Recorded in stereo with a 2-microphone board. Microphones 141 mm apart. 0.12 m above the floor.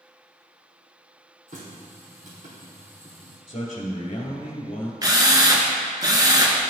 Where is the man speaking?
40° left (ahead or behind), 1.7 m.